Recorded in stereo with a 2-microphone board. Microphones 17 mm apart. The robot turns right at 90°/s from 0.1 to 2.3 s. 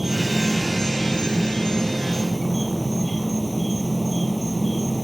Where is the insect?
25° right; by 5.0 s 170° left.